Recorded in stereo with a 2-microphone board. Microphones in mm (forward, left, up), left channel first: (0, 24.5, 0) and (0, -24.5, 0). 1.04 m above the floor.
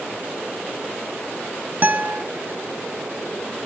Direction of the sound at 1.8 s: 35° right (ahead or behind).